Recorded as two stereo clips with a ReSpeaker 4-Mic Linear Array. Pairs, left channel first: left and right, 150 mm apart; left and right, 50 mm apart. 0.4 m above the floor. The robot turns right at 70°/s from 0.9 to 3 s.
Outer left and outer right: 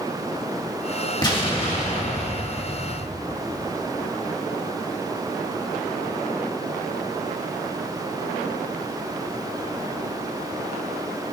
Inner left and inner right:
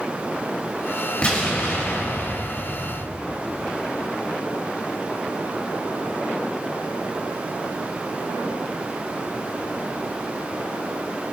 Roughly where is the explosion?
Ahead left.